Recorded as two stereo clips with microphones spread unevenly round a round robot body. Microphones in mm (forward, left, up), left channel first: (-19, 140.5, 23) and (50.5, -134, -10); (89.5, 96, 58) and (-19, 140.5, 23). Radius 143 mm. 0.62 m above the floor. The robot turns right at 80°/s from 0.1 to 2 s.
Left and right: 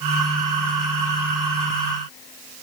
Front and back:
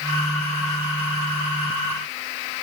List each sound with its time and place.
Only background noise.